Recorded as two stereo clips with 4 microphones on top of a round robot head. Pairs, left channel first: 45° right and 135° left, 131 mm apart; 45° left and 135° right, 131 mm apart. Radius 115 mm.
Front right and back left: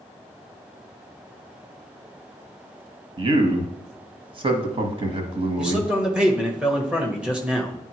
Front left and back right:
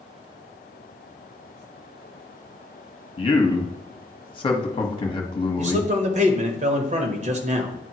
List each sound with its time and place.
3.2 s a man speaking: 90° left, 1.2 m
5.6 s a man speaking: 145° right, 1.3 m